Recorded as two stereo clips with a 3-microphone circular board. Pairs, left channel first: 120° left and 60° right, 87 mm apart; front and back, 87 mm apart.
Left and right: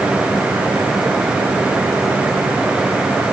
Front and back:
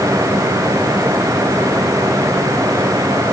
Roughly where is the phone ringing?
No phone ringing in this recording.